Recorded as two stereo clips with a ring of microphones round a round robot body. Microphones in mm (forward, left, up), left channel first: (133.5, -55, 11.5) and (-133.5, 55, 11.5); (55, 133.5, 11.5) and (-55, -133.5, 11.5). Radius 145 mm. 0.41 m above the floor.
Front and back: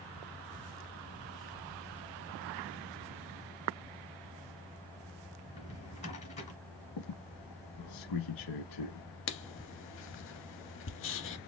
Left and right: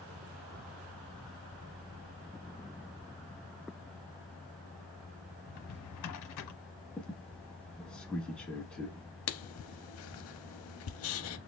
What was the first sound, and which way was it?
A drawer, 45° left.